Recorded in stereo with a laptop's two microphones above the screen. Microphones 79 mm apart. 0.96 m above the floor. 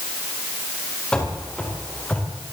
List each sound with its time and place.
1.1 s running footsteps: 15° left (ahead or behind), 8 m; by 2.3 s 20° left (ahead or behind), 7 m